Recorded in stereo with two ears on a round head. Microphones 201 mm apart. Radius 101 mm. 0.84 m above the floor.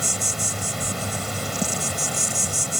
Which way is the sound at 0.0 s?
Centre (ahead or behind).